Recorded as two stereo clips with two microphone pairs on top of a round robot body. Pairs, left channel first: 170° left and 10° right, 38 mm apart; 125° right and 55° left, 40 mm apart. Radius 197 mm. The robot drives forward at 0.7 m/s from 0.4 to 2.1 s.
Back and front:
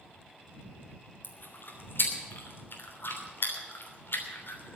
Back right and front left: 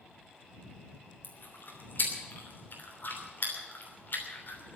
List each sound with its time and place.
1.2 s chewing: 160° right, 2.5 m; by 4.8 s 165° right, 3 m